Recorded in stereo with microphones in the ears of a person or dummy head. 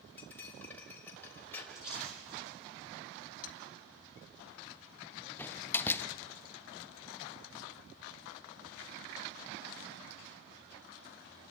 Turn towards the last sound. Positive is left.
turn(degrees=10)  # may be behind; listen again after turning